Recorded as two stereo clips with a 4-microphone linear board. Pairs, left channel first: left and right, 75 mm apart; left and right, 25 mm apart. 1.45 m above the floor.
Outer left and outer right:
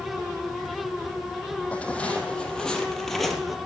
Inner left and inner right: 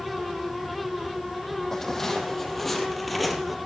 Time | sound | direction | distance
1.7 | footsteps | 15° left (ahead or behind) | 4 m